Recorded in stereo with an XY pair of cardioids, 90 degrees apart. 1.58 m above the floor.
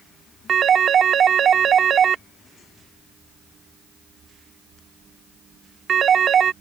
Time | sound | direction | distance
0.5 | a phone ringing | 60° right | ?